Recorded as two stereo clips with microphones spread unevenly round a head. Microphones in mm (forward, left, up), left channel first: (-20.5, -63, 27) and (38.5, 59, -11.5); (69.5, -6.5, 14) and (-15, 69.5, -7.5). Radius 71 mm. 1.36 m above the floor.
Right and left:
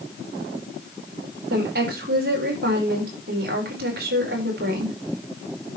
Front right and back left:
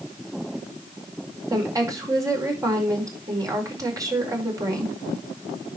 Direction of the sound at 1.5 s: 80° left.